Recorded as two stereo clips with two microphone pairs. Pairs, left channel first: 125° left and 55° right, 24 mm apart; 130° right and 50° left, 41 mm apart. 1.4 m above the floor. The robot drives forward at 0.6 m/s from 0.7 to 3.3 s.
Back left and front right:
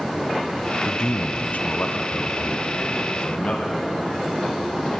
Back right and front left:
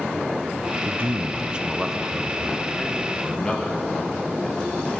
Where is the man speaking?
70° left, 0.5 m; by 5.0 s 160° left, 1.4 m.